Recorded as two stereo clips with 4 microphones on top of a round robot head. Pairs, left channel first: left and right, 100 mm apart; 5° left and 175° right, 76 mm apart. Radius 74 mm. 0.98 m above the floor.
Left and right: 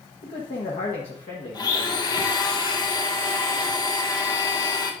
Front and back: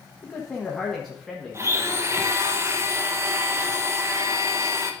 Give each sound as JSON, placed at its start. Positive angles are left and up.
{"t": 0.2, "sound": "a man speaking", "azimuth_deg": 90, "distance_m": 1.2}
{"t": 1.5, "sound": "a blender", "azimuth_deg": 135, "distance_m": 0.9}